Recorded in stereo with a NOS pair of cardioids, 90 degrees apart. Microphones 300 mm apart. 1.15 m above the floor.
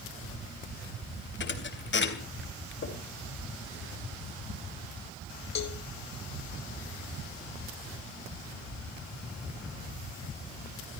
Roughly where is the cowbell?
Ahead left.